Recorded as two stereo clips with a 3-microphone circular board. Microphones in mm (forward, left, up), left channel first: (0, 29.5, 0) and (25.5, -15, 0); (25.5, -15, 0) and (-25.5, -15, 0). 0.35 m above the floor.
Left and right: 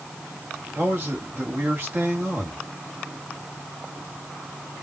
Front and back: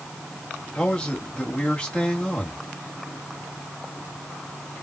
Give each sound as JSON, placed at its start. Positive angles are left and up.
{"t": 0.8, "sound": "a man speaking", "azimuth_deg": -65, "distance_m": 1.9}